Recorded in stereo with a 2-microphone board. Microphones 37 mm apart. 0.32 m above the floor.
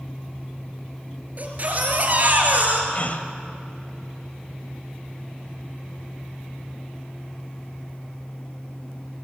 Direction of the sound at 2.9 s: 45° left (ahead or behind).